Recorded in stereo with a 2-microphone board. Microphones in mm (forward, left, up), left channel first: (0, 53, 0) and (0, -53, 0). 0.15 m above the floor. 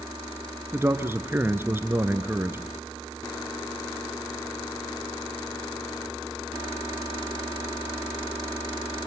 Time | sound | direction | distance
0.7 | a man speaking | 20° right (ahead or behind) | 1.8 m